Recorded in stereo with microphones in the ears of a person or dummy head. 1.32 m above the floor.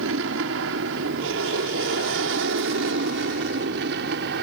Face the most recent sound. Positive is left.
turn(degrees=-60)  # may be behind; listen again after turning